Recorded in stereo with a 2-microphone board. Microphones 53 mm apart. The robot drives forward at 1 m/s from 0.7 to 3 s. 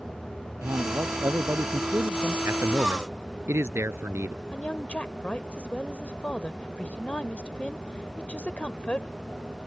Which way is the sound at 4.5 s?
25° left (ahead or behind).